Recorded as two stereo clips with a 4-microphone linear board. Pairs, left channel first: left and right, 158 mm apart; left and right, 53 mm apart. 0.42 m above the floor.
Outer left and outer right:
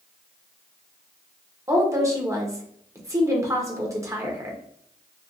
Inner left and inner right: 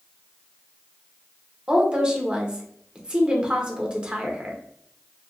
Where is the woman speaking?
20° right (ahead or behind), 0.8 m.